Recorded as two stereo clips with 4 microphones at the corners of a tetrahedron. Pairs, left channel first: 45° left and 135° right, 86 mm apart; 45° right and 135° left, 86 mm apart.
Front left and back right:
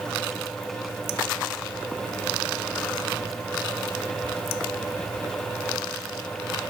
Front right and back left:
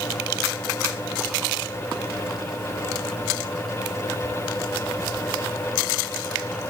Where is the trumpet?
No trumpet in this recording.